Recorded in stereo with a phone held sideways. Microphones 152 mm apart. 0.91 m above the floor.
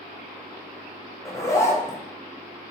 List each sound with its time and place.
1.2 s a zipper: 20° left (ahead or behind), 0.5 m